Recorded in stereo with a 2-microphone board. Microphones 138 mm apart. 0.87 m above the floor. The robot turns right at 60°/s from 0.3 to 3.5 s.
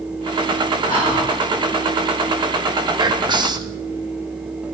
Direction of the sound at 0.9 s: 80° left.